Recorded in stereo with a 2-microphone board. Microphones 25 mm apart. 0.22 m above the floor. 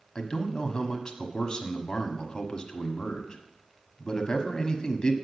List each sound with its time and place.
0.1 s a man speaking: 35° left (ahead or behind), 1.1 m